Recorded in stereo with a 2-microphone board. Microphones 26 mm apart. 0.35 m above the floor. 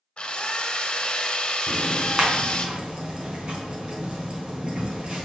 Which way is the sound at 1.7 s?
40° right (ahead or behind).